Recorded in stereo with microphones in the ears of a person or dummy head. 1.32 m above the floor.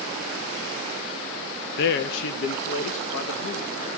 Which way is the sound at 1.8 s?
55° left (ahead or behind).